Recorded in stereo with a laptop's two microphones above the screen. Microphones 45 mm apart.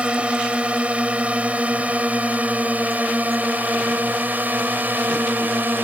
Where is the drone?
25° right (ahead or behind); by 5.8 s 45° right (ahead or behind).